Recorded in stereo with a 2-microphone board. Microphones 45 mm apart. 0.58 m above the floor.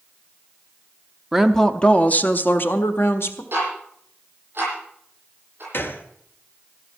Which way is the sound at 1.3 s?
5° right (ahead or behind).